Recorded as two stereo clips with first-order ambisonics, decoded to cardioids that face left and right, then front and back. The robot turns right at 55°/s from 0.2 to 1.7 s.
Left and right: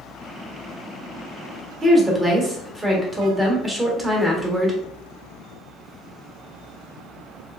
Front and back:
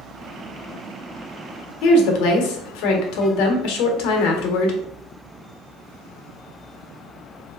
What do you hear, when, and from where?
1.8 s a woman speaking: 15° right, 0.9 m